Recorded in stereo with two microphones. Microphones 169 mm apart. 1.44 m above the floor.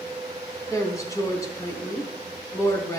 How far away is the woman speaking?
About 4 m.